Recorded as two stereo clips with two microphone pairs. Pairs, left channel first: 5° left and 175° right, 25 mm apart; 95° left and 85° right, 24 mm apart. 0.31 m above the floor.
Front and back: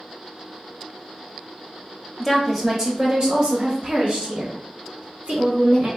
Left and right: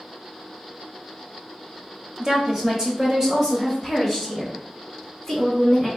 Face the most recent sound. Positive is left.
turn(degrees=-175)